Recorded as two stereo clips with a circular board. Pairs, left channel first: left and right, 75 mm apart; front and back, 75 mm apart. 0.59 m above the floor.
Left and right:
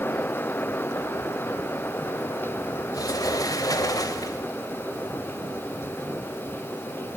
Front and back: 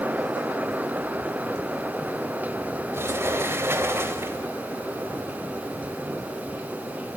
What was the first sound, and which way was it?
A sliding door, 125° left.